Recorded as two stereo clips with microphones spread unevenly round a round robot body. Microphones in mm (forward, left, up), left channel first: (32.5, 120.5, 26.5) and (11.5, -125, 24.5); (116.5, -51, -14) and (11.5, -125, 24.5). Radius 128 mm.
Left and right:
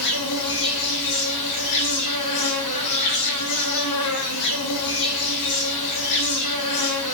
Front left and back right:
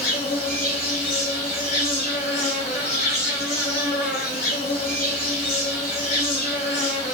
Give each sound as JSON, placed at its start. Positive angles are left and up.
{"t": 0.0, "sound": "an insect", "azimuth_deg": 105, "distance_m": 0.8}